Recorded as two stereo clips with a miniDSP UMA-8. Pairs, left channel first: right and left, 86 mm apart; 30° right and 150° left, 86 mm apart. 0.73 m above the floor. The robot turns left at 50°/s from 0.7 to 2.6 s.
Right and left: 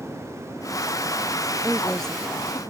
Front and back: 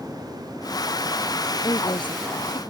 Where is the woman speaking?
15° left; by 2.6 s 35° right.